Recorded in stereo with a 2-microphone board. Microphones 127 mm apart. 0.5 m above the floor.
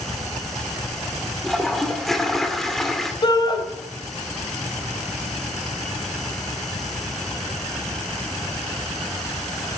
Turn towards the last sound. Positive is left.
turn(degrees=35)  # may be behind; listen again after turning